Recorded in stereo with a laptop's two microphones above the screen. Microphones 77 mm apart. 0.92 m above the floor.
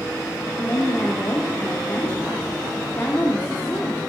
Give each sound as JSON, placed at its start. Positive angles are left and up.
{"t": 0.6, "sound": "a woman speaking", "side_deg": 25, "distance_m": 2.5}